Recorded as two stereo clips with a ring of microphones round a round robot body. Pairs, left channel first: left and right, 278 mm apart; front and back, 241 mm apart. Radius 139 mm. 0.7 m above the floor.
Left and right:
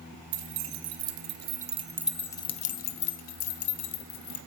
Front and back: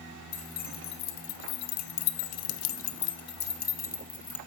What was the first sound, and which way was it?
Keys jangling, 65° right.